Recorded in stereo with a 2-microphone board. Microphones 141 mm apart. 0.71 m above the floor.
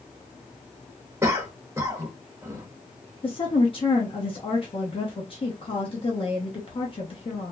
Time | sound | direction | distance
1.2 | a cough | 20° right (ahead or behind) | 0.8 m
3.2 | a woman speaking | 40° left (ahead or behind) | 0.7 m